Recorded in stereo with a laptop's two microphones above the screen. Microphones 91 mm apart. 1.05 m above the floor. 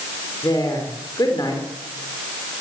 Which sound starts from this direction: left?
A woman speaking, at 0.4 s.